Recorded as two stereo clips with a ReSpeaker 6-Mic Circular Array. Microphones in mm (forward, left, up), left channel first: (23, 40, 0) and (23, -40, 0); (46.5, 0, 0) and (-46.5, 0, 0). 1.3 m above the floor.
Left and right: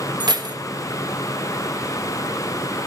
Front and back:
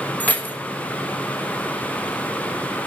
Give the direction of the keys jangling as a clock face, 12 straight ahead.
2 o'clock.